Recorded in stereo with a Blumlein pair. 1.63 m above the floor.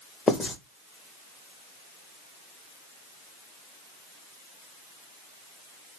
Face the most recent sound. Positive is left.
turn(degrees=15)